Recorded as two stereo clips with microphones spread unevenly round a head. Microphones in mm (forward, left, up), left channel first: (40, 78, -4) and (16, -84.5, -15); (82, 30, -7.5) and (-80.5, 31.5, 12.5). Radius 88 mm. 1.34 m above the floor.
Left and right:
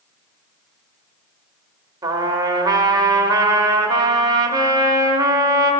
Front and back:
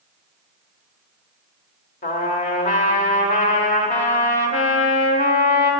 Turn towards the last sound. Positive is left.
turn(degrees=-35)